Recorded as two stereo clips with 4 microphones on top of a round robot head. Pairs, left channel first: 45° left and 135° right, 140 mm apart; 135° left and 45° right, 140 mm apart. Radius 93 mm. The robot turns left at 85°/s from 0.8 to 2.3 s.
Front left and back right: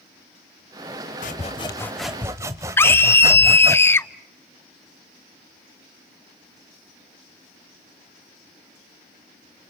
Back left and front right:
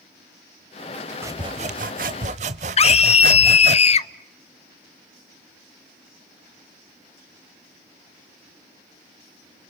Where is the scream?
115° left, 0.8 m.